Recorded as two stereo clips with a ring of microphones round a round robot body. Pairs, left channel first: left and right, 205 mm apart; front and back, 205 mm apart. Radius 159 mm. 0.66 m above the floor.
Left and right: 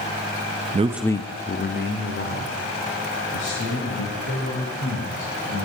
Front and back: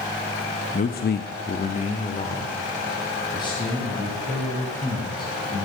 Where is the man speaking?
45° right, 0.7 m; by 5.7 s 75° left, 6.5 m.